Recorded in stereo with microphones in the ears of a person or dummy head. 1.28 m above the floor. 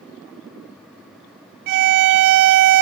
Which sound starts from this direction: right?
A violin, at 1.7 s.